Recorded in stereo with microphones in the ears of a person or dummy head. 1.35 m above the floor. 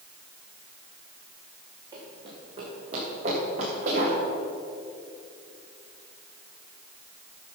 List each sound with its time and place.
1.9 s running footsteps: 20° right (ahead or behind), 5 m; by 4.2 s 45° right (ahead or behind), 7.5 m